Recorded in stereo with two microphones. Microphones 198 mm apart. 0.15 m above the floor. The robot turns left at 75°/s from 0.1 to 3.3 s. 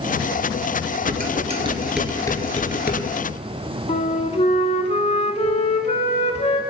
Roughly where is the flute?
Left.